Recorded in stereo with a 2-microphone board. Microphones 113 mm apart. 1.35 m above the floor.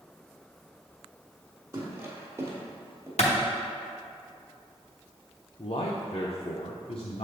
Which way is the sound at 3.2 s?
75° left (ahead or behind).